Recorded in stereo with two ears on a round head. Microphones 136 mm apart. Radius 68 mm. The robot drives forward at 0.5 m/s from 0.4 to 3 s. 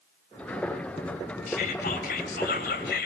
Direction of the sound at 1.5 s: 60° left (ahead or behind).